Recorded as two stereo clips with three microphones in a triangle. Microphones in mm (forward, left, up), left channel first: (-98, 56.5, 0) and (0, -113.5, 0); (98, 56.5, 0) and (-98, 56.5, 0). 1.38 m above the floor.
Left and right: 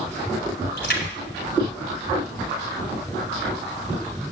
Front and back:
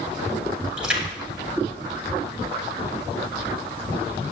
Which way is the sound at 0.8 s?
95° left.